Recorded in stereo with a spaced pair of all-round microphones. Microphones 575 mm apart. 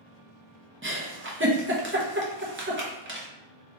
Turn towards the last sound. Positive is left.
turn(degrees=-20)  # may be behind; listen again after turning